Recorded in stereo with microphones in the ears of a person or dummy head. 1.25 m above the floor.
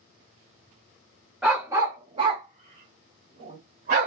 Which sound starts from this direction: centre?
A dog barking, at 1.4 s.